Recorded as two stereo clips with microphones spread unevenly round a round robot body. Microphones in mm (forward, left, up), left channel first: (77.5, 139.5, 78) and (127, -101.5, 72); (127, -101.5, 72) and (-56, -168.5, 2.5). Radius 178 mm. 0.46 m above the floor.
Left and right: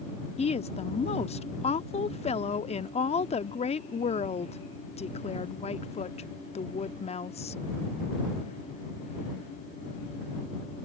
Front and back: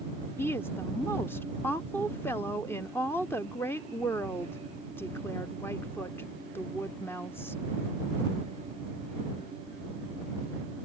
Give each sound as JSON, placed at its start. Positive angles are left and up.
{"t": 0.4, "sound": "a woman speaking", "azimuth_deg": 125}